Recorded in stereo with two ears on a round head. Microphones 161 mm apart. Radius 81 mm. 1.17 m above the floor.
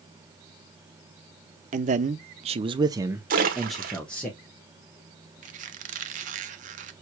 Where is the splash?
50° right (ahead or behind), 1.1 m.